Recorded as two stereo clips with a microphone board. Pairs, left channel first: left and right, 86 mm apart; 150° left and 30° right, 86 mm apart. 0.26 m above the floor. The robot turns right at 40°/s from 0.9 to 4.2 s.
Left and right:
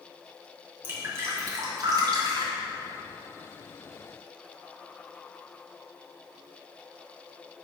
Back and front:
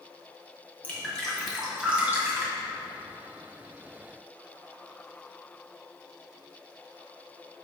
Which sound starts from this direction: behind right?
Dripping, at 0.8 s.